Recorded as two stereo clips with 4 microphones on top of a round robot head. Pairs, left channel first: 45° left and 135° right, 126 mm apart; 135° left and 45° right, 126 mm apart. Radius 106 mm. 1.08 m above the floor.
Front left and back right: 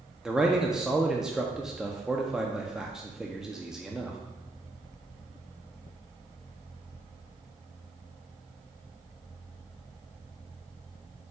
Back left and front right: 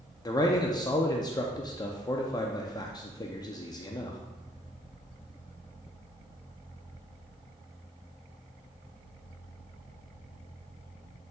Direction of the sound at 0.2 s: 145° left.